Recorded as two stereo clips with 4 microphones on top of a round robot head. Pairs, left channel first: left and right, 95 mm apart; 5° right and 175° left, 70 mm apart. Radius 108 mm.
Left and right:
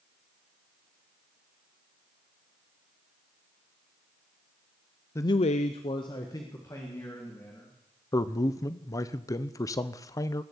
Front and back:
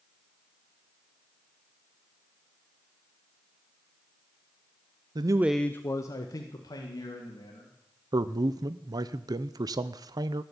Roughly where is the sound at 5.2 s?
Behind left.